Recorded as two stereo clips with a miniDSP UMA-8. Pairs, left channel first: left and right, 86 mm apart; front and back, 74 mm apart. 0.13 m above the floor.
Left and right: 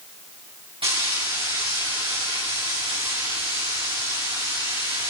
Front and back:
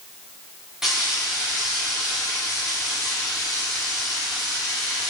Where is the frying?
95° right, 6 m.